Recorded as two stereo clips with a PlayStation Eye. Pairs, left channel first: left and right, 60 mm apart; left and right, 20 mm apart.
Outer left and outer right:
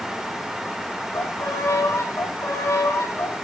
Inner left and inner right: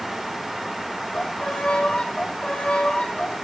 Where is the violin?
60° left (ahead or behind), 4 m.